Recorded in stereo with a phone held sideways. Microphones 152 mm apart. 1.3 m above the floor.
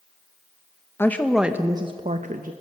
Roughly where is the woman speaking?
Centre.